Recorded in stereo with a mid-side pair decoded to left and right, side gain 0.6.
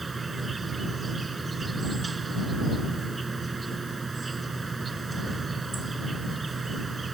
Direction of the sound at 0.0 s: 20° right.